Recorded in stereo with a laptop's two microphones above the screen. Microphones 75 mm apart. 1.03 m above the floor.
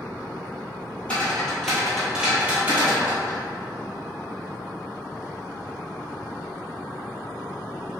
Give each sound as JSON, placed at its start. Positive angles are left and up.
{"t": 1.1, "sound": "footsteps", "side_deg": 20, "distance_m": 1.1}